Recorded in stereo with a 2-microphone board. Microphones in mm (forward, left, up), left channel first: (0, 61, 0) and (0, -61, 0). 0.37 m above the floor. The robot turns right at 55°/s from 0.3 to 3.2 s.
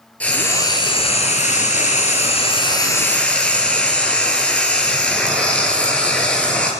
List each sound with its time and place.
0.2 s frying: 10° left, 3.5 m; by 6.7 s 170° left, 3.5 m